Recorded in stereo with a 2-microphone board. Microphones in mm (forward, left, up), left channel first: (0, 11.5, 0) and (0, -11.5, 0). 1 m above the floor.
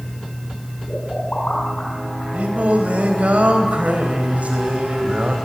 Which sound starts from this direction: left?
A pop, at 0.9 s.